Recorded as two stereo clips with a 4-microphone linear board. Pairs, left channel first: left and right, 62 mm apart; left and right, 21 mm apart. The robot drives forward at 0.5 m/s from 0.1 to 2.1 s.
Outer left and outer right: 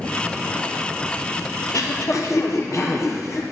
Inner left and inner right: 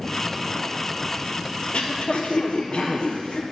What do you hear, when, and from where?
1.6 s throat clearing: 65° left (ahead or behind), 0.8 m; by 3.4 s 55° left (ahead or behind), 0.9 m